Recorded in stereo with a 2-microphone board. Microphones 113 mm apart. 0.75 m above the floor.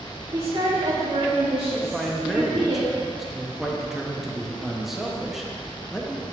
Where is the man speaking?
Centre (ahead or behind), 0.7 m.